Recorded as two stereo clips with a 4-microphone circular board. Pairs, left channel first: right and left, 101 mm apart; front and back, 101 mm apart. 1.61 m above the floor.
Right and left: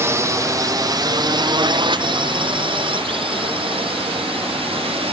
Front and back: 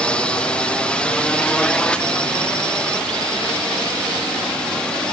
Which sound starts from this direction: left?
A drone, at 0.0 s.